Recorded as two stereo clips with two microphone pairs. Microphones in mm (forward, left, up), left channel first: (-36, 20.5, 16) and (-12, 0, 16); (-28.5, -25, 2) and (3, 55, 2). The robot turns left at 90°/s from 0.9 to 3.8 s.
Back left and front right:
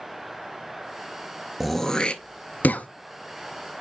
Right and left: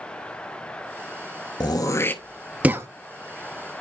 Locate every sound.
1.6 s throat clearing: 130° right, 0.7 m; by 2.9 s 115° left, 0.7 m